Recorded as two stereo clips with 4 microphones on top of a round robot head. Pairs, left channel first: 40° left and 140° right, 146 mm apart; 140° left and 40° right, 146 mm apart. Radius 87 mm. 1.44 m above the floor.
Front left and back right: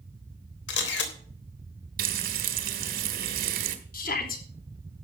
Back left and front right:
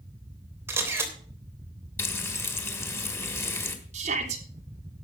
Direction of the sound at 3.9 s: 5° left.